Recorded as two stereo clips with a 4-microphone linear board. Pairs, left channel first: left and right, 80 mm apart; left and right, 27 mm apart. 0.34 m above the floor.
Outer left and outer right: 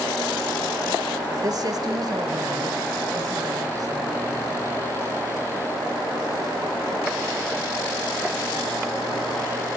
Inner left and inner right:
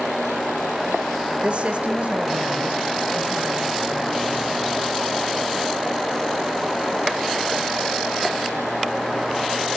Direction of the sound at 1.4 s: 45° right (ahead or behind).